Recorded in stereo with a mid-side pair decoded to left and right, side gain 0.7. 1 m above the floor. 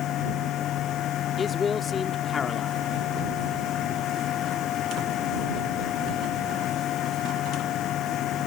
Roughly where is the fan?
Ahead left.